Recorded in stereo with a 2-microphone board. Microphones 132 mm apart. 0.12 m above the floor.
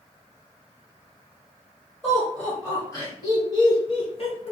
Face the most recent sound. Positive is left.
turn(degrees=50)  # may be behind; listen again after turning